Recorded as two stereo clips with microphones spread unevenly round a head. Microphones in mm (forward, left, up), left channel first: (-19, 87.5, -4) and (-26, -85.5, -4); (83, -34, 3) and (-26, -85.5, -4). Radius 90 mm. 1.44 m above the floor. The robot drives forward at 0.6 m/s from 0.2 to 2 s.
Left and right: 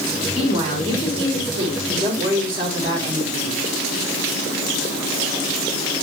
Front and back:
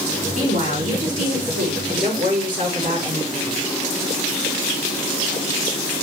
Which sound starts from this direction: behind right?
A woman speaking, at 0.3 s.